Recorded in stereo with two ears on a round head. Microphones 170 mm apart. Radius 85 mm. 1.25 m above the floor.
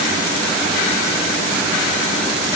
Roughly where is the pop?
No pop in this recording.